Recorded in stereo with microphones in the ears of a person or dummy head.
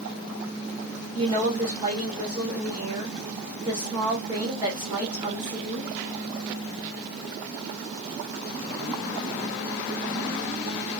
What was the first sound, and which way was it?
A woman speaking, 25° right (ahead or behind).